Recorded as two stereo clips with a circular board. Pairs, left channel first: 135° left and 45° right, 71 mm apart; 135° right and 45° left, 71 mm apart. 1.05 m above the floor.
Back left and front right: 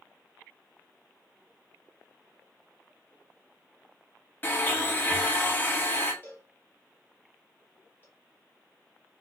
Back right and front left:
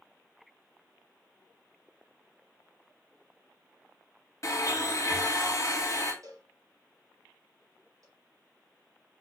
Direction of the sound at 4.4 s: 170° right.